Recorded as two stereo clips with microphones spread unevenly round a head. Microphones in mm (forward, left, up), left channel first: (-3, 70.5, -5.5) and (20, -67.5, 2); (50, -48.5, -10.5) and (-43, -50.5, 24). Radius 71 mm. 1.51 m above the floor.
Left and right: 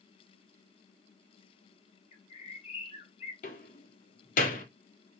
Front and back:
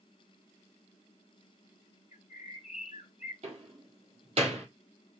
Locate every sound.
2.1 s a bird: 55° left, 3 m
3.4 s a door slam: 135° left, 3.5 m